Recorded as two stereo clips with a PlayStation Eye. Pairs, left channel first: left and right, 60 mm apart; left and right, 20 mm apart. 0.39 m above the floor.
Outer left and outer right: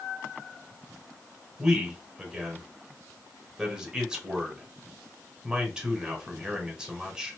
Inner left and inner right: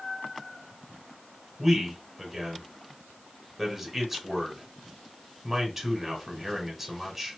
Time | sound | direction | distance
1.6 | a man speaking | 10° right (ahead or behind) | 1.3 m